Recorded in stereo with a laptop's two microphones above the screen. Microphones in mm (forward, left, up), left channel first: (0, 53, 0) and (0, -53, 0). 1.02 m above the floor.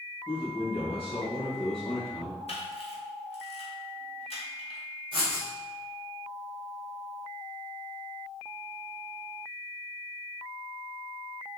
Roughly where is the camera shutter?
Left.